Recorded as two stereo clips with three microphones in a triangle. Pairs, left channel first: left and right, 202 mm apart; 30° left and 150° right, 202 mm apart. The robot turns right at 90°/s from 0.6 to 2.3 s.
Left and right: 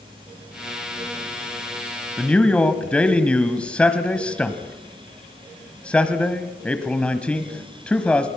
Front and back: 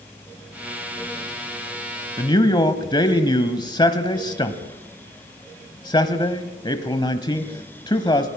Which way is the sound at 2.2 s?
5° left.